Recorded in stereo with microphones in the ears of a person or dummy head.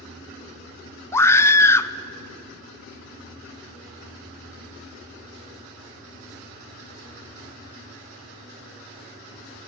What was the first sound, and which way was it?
A scream, 10° left (ahead or behind).